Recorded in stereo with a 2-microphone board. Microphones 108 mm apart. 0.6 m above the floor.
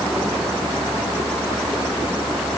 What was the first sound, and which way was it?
Only background noise.